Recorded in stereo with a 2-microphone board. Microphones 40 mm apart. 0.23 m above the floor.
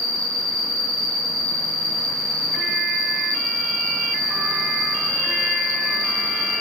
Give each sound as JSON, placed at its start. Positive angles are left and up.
{"t": 0.0, "sound": "an insect", "side_deg": 15, "distance_m": 3.0}